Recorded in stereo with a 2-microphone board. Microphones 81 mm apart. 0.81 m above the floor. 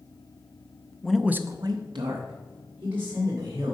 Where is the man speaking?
10° left (ahead or behind), 0.6 m; by 3.8 s 65° right (ahead or behind), 2.5 m.